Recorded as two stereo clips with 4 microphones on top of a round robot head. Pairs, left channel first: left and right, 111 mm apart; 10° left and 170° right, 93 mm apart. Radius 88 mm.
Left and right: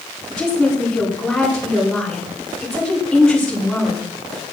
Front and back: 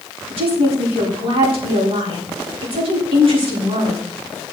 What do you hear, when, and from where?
0.3 s a woman speaking: 175° left, 6 m